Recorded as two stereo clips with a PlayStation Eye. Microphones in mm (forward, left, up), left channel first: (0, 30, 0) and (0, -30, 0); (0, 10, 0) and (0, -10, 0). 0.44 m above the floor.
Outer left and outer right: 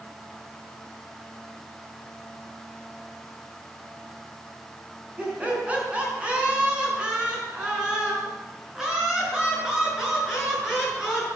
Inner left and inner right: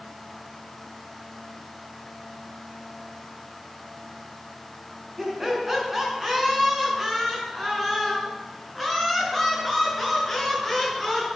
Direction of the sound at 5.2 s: 25° right (ahead or behind).